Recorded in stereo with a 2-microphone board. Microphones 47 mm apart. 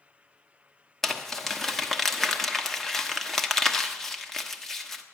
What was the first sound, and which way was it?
Crumpling, 5° left (ahead or behind).